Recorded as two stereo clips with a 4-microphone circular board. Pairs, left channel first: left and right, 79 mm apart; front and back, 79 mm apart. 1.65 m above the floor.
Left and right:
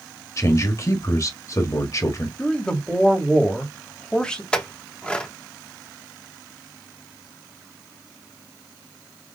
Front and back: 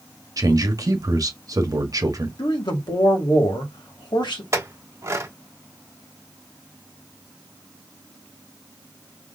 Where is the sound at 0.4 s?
140° left, 1.1 m.